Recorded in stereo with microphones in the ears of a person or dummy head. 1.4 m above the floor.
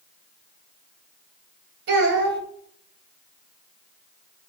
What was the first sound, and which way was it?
A child speaking, 60° right (ahead or behind).